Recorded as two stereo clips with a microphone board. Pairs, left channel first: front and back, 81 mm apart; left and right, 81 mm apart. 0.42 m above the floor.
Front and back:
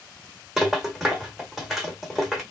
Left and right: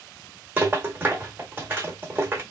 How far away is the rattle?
About 1.0 m.